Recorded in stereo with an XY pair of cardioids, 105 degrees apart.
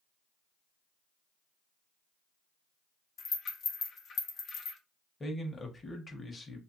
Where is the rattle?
60° left, 1.0 m.